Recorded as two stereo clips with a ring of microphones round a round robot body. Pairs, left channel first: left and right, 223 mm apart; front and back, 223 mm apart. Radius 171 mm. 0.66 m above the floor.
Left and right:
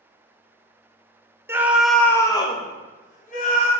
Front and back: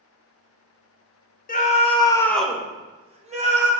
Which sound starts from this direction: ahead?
A scream, at 1.5 s.